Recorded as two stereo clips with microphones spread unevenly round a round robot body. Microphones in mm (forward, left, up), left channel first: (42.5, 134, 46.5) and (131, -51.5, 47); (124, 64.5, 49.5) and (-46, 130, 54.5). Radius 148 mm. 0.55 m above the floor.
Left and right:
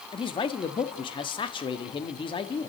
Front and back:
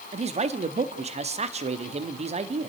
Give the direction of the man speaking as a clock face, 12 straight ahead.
7 o'clock.